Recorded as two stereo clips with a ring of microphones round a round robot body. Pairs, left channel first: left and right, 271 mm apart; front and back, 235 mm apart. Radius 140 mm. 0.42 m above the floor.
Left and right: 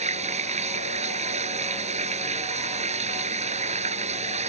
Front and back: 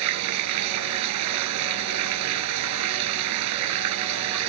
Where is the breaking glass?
No breaking glass in this recording.